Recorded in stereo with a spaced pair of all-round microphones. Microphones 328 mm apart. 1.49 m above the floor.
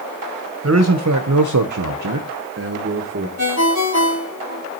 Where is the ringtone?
55° left (ahead or behind), 1.9 m.